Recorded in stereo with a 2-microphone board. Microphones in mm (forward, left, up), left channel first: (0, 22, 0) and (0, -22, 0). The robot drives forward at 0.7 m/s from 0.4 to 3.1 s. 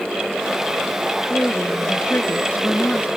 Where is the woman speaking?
45° left (ahead or behind); by 3.1 s 50° left (ahead or behind).